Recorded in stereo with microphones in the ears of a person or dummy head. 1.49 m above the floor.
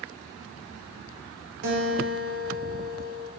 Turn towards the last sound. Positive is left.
turn(degrees=-65)  # may be behind; listen again after turning